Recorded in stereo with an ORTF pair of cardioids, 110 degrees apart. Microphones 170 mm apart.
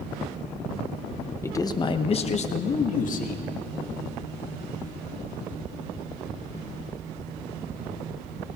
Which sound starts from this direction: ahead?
A man speaking, at 1.4 s.